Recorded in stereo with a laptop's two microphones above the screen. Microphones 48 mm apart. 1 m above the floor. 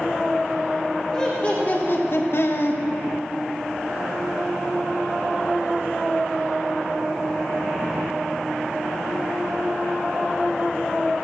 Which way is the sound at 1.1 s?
20° left (ahead or behind).